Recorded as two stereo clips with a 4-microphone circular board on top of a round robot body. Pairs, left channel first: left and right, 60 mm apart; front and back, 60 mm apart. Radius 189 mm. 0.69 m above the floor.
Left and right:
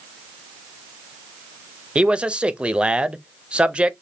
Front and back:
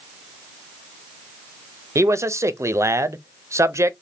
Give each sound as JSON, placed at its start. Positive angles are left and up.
{"t": 1.9, "sound": "a man speaking", "azimuth_deg": -160, "distance_m": 0.6}